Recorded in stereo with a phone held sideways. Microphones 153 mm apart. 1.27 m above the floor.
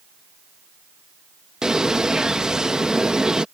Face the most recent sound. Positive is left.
turn(degrees=-5)  # may be behind; listen again after turning